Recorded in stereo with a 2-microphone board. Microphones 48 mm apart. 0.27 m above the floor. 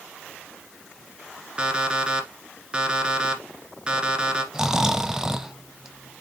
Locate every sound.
1.6 s an alarm clock: 20° right (ahead or behind), 1.5 m
4.5 s snoring: 10° right (ahead or behind), 0.7 m